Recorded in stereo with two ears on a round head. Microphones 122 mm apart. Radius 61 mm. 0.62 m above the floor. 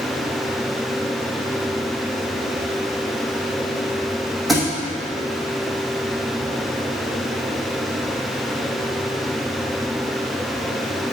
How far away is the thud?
About 2.5 m.